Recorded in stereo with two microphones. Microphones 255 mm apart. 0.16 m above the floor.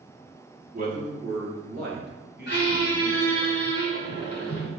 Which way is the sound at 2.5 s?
45° left (ahead or behind).